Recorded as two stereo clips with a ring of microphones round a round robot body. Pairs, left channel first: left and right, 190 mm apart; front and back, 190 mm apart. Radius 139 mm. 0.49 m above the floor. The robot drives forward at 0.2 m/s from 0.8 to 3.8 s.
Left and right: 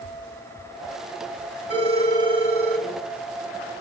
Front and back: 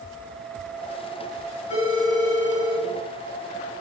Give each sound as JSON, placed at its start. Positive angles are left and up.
{"t": 1.7, "sound": "a phone ringing", "azimuth_deg": -60, "distance_m": 4.5}